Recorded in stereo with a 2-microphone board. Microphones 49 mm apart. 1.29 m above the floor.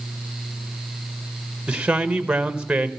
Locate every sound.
1.7 s a man speaking: 20° right (ahead or behind), 1.1 m